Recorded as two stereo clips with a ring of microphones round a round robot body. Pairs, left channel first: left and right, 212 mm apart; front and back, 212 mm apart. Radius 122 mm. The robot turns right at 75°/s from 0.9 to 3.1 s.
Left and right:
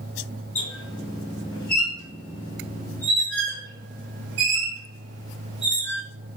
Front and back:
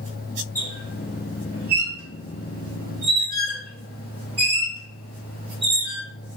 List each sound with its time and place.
0.6 s a squeak: 75° left, 1.9 m; by 6.0 s 120° right, 1.9 m